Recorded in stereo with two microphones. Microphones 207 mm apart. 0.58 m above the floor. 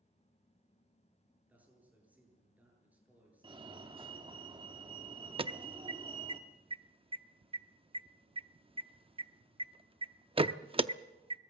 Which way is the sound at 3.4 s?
25° right (ahead or behind).